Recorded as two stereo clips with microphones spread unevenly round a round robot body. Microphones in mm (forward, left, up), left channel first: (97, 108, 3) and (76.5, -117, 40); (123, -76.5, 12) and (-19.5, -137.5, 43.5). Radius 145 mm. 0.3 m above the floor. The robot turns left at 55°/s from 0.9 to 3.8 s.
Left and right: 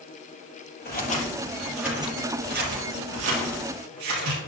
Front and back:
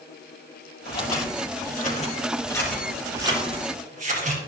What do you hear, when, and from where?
0.8 s scissors: 40° left, 4.5 m; by 4.4 s 120° right, 4.5 m